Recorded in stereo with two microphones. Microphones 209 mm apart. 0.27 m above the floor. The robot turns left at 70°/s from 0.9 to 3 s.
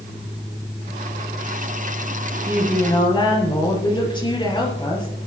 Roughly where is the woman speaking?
Behind.